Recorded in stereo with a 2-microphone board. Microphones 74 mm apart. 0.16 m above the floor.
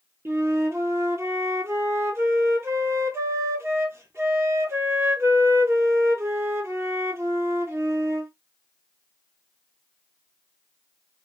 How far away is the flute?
About 0.8 m.